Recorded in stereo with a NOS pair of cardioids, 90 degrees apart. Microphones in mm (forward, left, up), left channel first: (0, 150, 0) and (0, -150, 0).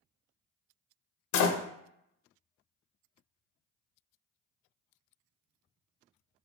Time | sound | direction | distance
1.3 | a door slam | 65° left | 0.6 m